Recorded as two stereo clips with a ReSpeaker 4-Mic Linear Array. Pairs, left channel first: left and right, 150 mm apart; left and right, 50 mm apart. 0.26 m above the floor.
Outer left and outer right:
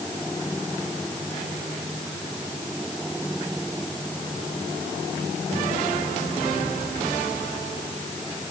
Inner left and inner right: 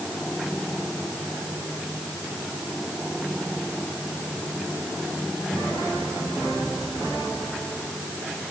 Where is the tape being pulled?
I don't hear tape being pulled.